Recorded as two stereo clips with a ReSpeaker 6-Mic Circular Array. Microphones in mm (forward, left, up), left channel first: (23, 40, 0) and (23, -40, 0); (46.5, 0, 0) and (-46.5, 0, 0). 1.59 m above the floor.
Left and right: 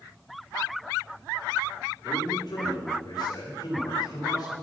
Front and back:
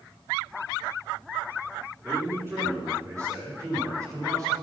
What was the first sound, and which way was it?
A man speaking, 115° left.